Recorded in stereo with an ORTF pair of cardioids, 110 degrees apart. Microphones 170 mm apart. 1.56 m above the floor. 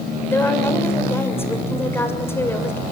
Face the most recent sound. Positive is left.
turn(degrees=10)